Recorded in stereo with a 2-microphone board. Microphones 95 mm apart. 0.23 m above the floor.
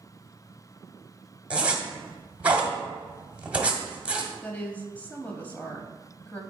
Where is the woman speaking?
15° left (ahead or behind), 1.0 m.